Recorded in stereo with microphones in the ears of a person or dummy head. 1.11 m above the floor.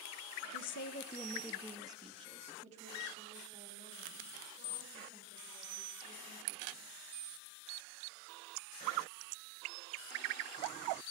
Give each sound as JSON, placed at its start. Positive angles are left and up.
{"t": 0.5, "sound": "a woman speaking", "side_deg": 75, "distance_m": 0.9}